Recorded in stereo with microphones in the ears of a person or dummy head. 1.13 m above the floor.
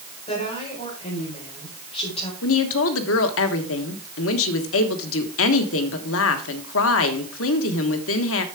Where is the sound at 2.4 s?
70° left (ahead or behind), 1.3 m.